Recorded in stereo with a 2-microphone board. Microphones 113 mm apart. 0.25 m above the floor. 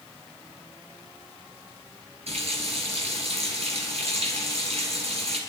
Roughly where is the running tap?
Right.